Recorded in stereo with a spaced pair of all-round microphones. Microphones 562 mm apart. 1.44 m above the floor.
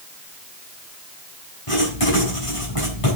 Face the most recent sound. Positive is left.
turn(degrees=65)  # may be behind; listen again after turning